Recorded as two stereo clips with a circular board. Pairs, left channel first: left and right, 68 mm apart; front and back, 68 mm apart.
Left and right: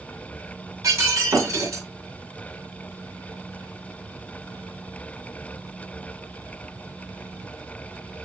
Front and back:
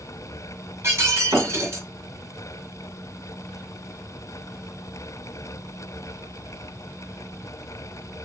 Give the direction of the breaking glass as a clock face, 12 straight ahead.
4 o'clock.